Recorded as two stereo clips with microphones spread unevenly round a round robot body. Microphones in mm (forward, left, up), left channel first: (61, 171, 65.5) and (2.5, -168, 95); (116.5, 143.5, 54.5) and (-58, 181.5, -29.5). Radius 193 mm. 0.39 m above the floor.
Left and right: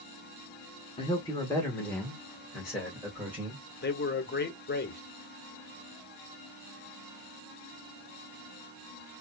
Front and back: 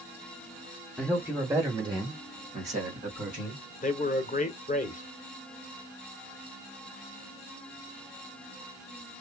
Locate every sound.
1.0 s a man speaking: 135° left, 1.3 m; by 3.6 s 175° left, 3 m
3.8 s a man speaking: 50° left, 1.2 m